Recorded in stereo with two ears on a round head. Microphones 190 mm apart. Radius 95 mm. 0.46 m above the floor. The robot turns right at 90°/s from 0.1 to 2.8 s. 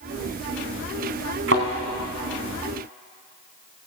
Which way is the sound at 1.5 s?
55° right (ahead or behind).